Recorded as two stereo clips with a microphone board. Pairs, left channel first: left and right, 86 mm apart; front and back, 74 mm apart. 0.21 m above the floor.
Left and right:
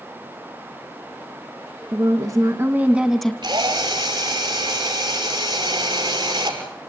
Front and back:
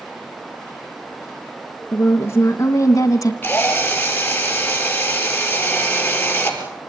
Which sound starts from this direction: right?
A drill, at 3.4 s.